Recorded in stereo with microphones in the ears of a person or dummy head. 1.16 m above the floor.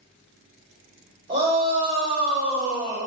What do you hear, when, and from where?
1.3 s a shout: 55° right (ahead or behind), 2 m